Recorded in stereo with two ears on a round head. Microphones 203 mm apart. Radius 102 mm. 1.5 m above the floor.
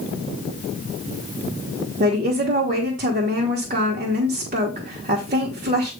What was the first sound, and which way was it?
A woman speaking, 35° right (ahead or behind).